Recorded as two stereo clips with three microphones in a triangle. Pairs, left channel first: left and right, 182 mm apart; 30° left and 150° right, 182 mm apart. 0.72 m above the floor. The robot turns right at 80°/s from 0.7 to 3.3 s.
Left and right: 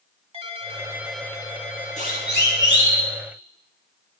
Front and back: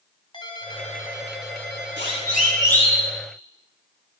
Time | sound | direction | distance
0.3 | a ringtone | 35° right | 2 m
2.0 | a siren | 40° left | 5.5 m